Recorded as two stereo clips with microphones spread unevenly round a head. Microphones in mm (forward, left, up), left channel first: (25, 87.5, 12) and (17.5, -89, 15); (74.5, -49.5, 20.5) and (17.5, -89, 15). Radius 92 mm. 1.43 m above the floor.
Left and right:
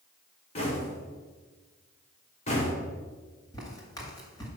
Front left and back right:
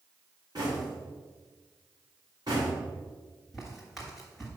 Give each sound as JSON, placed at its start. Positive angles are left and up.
{"t": 0.6, "sound": "knocking", "azimuth_deg": 145, "distance_m": 1.5}
{"t": 3.5, "sound": "footsteps", "azimuth_deg": 105, "distance_m": 1.4}